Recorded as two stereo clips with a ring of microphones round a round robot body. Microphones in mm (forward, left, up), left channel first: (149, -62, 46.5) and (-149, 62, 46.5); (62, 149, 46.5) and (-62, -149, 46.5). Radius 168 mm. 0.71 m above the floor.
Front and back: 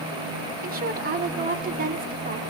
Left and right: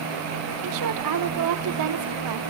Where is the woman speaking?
140° right, 2 m.